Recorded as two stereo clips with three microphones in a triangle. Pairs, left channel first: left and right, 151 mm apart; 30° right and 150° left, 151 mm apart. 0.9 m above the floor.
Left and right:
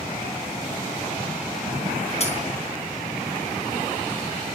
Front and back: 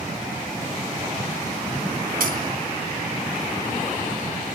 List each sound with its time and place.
2.2 s a dropped coin: 135° left, 3.5 m